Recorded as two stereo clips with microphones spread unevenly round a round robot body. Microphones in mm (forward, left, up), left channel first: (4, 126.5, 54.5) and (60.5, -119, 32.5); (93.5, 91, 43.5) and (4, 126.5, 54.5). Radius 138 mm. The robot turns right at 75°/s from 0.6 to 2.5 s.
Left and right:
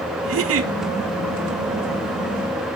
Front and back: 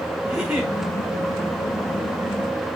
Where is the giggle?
120° right, 1.0 m; by 0.7 s 110° right, 1.0 m.